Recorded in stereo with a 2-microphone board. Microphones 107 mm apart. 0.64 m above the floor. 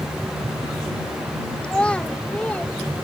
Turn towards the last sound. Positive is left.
turn(degrees=15)  # may be behind; listen again after turning